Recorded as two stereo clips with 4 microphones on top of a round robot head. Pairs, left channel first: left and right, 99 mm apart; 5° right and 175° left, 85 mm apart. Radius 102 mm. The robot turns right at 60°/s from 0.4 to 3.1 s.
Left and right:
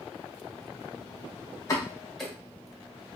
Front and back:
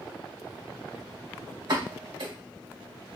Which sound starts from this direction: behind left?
A pop, at 1.7 s.